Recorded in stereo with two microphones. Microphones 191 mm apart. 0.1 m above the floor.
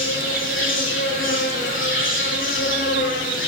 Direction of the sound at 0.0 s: 70° left (ahead or behind).